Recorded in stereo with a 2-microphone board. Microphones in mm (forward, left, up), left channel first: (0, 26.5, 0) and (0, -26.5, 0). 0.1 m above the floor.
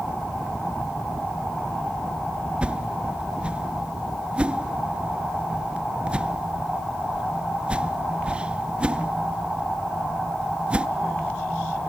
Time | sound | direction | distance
2.6 | a whoosh | 20° right (ahead or behind) | 0.5 m